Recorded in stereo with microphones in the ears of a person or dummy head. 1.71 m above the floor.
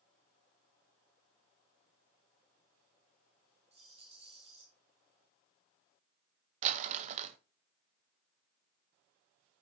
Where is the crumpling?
40° right (ahead or behind), 0.7 m.